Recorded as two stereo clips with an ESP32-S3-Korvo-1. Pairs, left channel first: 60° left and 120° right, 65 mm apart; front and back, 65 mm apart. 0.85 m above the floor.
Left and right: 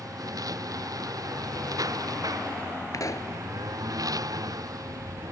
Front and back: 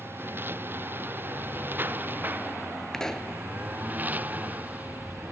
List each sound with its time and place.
0.0 s a lawn mower: 125° right; by 5.3 s 115° right
2.9 s a pop: 80° left